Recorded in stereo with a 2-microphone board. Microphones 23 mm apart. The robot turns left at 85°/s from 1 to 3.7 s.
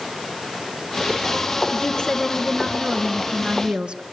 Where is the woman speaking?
75° left, 2.5 m; by 4.0 s 90° right, 2.5 m.